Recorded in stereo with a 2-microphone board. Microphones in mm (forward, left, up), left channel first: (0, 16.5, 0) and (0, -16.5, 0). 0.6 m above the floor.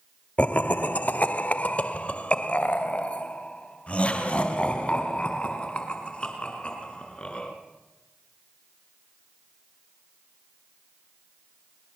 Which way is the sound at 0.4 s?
45° left (ahead or behind).